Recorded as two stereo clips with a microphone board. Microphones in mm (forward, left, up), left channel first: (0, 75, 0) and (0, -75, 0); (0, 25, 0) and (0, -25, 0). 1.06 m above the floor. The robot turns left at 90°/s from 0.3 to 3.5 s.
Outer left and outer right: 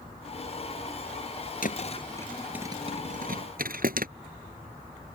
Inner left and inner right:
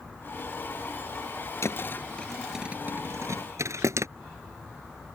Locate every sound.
1.6 s a thud: 70° left (ahead or behind); by 4.1 s 75° right (ahead or behind)